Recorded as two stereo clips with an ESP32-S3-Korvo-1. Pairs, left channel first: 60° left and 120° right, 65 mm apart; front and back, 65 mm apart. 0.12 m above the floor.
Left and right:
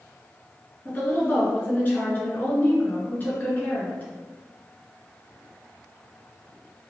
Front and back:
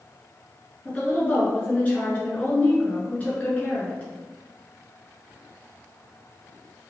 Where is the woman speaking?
40° left, 1.6 m.